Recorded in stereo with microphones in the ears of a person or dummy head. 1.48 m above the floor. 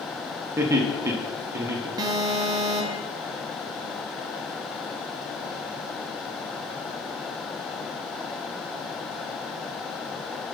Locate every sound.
0.6 s laughter: 25° right (ahead or behind), 0.8 m
2.0 s an alarm: 15° right (ahead or behind), 0.8 m